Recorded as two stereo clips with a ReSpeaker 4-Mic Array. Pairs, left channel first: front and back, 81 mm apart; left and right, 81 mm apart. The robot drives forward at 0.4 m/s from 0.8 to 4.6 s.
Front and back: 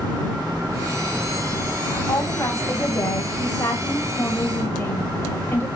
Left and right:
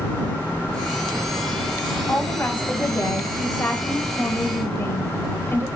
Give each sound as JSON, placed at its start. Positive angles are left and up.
{"t": 2.1, "sound": "a woman speaking", "azimuth_deg": 25, "distance_m": 2.5}